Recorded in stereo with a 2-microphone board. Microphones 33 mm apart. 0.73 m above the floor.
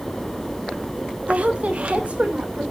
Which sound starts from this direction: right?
A woman speaking, at 1.3 s.